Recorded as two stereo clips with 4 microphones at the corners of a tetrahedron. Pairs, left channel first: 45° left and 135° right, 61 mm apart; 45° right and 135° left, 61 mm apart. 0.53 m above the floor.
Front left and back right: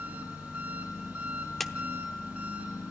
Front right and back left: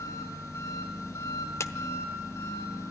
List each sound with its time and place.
0.0 s an engine running: 65° right, 6 m
1.6 s a clap: 40° right, 0.9 m